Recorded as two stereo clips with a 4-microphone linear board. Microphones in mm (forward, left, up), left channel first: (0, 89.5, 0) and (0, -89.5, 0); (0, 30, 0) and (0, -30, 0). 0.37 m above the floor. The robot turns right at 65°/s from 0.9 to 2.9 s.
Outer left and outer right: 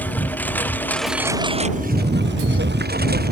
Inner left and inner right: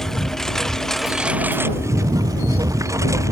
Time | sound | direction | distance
0.0 | a lawn mower | 10° left (ahead or behind) | ?